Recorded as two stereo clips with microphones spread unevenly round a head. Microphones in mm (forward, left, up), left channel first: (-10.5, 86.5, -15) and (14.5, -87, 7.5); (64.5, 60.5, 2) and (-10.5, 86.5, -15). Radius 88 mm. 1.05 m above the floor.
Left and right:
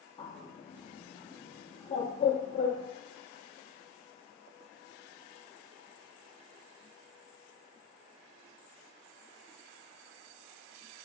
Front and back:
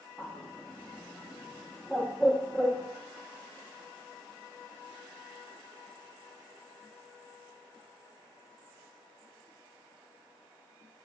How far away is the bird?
About 0.5 m.